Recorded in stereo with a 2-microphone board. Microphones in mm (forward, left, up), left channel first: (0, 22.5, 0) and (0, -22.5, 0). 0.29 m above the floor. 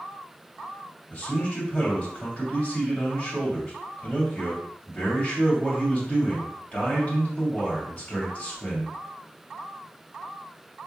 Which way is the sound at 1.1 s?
35° left (ahead or behind).